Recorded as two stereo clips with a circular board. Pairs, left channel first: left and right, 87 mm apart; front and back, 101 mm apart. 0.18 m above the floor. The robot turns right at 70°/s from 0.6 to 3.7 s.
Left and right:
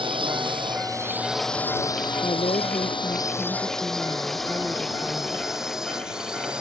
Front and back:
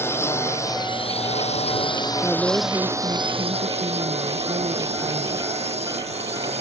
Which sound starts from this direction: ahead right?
A drone, at 0.0 s.